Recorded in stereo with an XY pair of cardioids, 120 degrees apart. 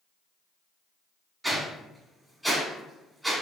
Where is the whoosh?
10° right, 1.0 m.